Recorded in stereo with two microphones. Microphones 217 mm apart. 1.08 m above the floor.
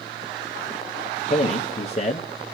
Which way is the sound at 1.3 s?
30° left (ahead or behind).